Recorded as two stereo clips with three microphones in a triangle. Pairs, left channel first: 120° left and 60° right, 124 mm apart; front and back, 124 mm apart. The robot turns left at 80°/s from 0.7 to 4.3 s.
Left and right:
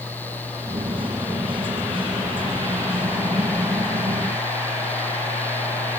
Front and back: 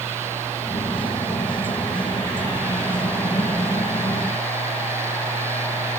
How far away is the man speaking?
No man speaking in this recording.